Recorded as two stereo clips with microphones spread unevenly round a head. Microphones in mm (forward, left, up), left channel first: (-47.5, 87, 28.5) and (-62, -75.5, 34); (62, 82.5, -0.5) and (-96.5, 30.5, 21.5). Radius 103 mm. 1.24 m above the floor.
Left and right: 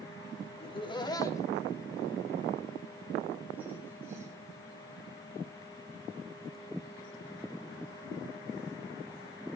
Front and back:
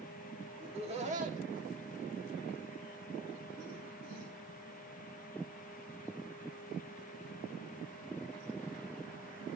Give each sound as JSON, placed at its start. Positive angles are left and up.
{"t": 0.6, "sound": "laughter", "azimuth_deg": 140, "distance_m": 3.5}